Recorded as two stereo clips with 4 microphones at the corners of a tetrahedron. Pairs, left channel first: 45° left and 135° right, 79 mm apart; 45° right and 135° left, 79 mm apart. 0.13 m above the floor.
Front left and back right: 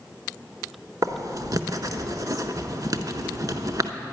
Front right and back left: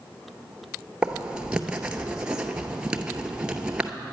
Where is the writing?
150° right, 0.6 m.